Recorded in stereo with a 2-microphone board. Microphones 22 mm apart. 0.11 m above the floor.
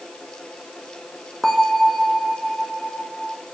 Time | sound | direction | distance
1.4 | a bell | 20° left (ahead or behind) | 1.2 m